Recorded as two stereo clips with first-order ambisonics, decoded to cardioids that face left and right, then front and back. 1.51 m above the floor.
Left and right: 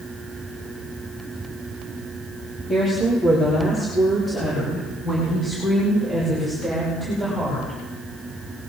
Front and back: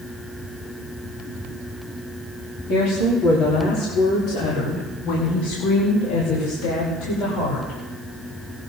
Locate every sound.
2.7 s a woman speaking: 25° left, 3.5 m; by 7.8 s 5° left, 6.5 m